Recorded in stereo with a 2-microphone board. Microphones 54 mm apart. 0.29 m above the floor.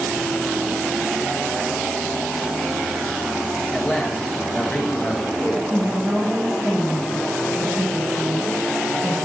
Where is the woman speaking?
35° right (ahead or behind), 1.2 m.